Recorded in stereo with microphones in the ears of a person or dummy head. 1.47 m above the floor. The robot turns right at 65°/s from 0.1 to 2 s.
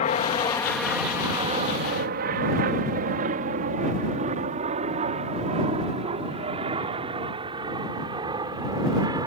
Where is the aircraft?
40° left (ahead or behind); by 9.3 s 25° right (ahead or behind).